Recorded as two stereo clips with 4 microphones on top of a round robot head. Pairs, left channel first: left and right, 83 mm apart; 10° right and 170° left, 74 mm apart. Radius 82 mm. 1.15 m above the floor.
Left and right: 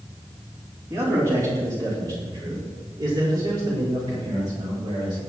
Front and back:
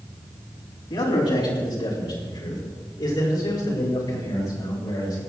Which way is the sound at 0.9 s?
30° right.